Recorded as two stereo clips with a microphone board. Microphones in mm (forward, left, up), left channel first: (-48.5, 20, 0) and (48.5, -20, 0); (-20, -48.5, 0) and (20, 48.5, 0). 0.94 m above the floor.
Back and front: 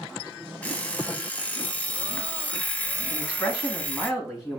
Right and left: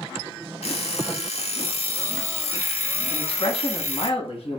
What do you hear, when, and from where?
0.6 s an alarm clock: 125° right, 0.6 m
3.1 s a man speaking: 110° right, 1.7 m